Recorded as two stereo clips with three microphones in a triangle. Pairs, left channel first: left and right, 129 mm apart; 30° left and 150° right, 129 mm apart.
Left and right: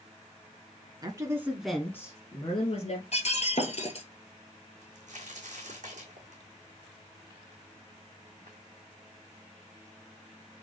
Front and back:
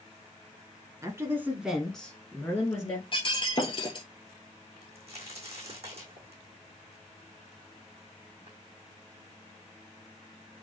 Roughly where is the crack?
Right.